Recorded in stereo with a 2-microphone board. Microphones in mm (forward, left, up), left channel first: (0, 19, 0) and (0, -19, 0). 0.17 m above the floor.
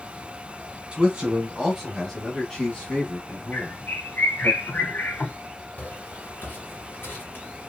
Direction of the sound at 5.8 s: 45° left (ahead or behind).